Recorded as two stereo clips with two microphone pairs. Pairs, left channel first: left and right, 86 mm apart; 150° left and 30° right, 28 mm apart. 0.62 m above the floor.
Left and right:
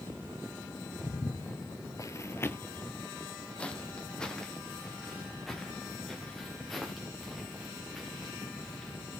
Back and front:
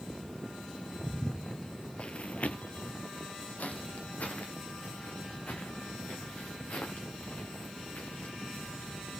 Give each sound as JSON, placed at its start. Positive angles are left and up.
{"t": 1.0, "sound": "footsteps", "azimuth_deg": 50, "distance_m": 0.9}